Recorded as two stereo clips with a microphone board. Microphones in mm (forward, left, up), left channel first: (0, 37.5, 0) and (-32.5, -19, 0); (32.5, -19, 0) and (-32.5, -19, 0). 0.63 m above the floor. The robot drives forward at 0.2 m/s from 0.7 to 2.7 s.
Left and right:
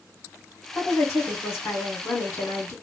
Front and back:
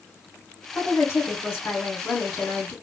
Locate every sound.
0.8 s a woman speaking: 35° left, 1.6 m; by 2.7 s 45° left, 1.4 m